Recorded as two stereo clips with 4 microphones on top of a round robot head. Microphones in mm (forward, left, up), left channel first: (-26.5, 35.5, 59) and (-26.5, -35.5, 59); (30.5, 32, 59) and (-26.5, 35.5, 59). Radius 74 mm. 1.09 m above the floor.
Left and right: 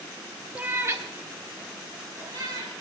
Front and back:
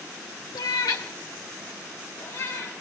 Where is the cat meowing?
15° right, 1.1 m; by 2.7 s 50° right, 4.5 m.